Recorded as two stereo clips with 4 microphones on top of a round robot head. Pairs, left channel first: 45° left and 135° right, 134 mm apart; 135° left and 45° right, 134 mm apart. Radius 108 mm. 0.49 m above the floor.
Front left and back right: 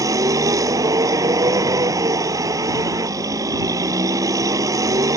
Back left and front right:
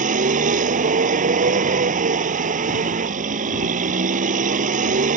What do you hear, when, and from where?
0.0 s a vehicle: 70° right